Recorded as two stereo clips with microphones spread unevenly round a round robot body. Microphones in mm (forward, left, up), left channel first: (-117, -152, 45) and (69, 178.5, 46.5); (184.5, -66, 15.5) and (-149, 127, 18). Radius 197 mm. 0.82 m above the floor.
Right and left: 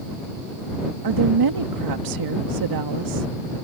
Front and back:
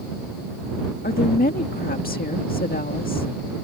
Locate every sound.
1.0 s a woman speaking: 35° left